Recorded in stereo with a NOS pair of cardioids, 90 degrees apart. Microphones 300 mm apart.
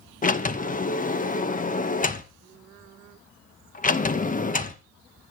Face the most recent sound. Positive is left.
turn(degrees=25)